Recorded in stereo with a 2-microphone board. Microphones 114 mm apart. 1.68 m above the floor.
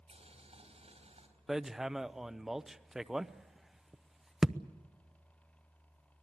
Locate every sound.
0.1 s boiling: 70° right (ahead or behind), 4 m
1.5 s hammering: 5° right (ahead or behind), 0.6 m